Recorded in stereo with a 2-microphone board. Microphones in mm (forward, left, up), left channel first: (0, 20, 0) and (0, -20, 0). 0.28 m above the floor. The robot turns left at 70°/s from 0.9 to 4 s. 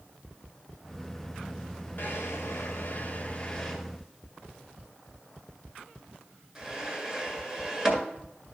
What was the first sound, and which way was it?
A drawer, 55° left (ahead or behind).